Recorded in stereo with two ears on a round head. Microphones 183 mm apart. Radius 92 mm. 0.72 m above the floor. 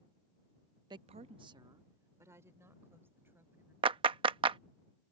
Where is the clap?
25° right (ahead or behind).